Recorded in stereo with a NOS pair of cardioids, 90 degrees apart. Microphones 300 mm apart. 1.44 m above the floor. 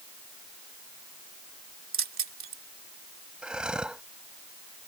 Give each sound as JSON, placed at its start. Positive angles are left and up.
{"t": 1.9, "sound": "keys jangling", "azimuth_deg": -45}
{"t": 3.4, "sound": "breathing", "azimuth_deg": -5}